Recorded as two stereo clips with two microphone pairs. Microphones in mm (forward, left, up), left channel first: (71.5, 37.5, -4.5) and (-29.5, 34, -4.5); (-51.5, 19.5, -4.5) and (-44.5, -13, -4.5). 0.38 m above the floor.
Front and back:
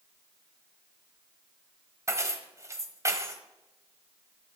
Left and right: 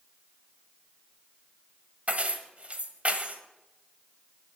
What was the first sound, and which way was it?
Keys jangling, 125° right.